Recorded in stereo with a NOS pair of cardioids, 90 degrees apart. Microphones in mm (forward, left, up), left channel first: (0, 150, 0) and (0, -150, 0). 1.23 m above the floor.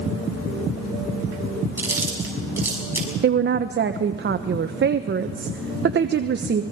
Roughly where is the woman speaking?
Ahead right.